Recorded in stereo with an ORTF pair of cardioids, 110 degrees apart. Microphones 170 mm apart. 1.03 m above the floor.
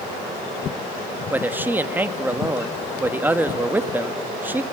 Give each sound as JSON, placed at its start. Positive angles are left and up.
{"t": 1.3, "sound": "a man speaking", "azimuth_deg": -10, "distance_m": 1.2}